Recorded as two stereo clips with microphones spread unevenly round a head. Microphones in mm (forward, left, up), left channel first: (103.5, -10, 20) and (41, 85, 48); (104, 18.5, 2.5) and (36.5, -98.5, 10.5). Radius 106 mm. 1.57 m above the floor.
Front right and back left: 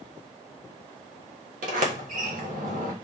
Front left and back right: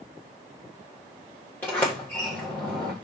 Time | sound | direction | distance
1.6 | a sliding door | 145° left | 1.3 m